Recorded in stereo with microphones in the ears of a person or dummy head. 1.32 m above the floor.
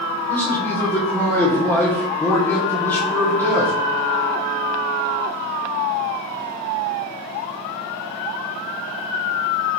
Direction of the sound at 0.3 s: 10° left (ahead or behind).